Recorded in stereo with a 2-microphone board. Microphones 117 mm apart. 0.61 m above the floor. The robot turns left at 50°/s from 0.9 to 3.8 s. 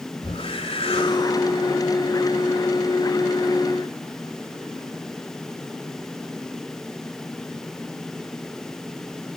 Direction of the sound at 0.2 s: 60° left.